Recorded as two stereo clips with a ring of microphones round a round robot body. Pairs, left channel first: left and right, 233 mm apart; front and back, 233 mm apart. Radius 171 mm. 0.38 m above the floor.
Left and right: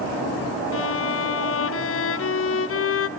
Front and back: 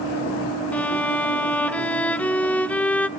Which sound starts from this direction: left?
A violin, at 0.7 s.